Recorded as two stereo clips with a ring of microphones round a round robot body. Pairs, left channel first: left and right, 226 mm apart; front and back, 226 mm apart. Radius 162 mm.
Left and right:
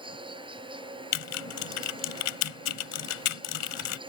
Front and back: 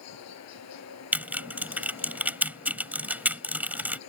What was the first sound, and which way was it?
An insect, 20° right.